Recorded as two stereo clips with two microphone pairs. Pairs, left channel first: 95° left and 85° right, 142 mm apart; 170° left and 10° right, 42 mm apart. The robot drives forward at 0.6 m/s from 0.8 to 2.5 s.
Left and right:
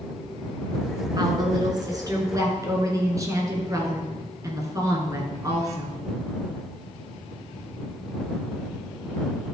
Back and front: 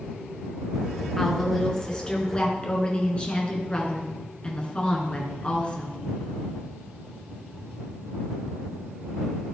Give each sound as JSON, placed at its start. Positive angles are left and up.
{"t": 1.2, "sound": "a woman speaking", "azimuth_deg": -115, "distance_m": 1.9}